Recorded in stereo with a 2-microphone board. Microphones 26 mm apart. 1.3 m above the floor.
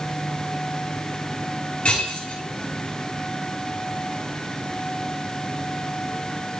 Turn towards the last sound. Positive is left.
turn(degrees=50)  # may be behind; listen again after turning